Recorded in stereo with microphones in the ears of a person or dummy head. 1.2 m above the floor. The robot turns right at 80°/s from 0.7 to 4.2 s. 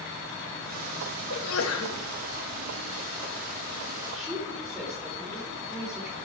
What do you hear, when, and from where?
1.3 s a sneeze: 70° left, 1.8 m; by 2.0 s 125° left, 1.8 m
4.1 s a woman speaking: 5° left (ahead or behind), 4.5 m; by 6.2 s centre (ahead or behind), 4.5 m